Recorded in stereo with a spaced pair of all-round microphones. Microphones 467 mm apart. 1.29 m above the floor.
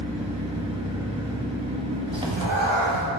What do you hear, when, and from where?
0.0 s an engine running: 10° right (ahead or behind), 1.5 m
2.1 s a cat meowing: 70° right (ahead or behind), 1.8 m